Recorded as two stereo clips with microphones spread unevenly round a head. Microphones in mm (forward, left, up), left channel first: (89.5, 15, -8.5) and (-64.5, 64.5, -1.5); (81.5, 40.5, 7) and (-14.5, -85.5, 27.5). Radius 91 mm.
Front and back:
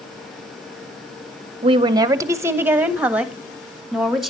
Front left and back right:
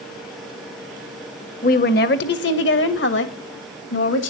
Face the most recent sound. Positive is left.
turn(degrees=75)